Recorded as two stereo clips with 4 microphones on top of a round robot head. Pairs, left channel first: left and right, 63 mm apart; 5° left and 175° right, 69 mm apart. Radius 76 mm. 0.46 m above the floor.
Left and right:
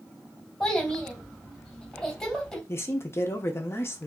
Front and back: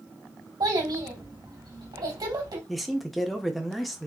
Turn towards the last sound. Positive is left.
turn(degrees=95)